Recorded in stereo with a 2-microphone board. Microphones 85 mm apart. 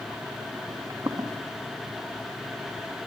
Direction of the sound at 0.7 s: 40° right (ahead or behind).